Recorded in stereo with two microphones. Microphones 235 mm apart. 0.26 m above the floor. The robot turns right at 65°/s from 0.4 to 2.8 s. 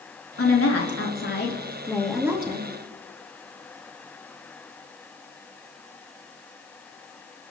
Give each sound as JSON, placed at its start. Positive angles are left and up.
{"t": 0.4, "sound": "a woman speaking", "azimuth_deg": 65, "distance_m": 4.0}